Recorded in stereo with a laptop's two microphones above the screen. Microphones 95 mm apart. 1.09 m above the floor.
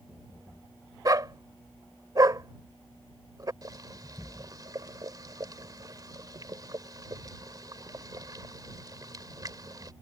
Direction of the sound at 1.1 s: 40° right (ahead or behind).